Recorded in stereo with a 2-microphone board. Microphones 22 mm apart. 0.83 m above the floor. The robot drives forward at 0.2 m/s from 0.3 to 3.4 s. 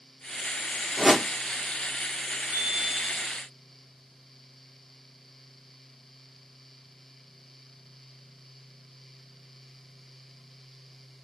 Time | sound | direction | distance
1.0 | a whoosh | 10° right (ahead or behind) | 0.9 m
2.5 | a chime | 60° right (ahead or behind) | 1.4 m